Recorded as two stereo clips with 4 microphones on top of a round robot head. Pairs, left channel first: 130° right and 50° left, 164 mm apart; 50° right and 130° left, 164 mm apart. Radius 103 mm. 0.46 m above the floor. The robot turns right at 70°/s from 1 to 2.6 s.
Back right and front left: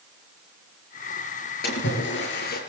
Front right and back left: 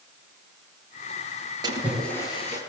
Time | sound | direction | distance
1.6 | a splash | 160° right | 6.5 m